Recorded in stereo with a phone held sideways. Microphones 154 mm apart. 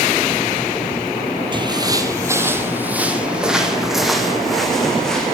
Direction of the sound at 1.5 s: 30° right (ahead or behind).